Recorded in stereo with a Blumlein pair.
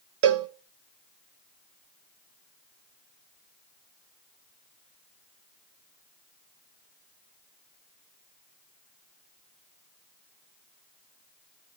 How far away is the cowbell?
About 0.8 m.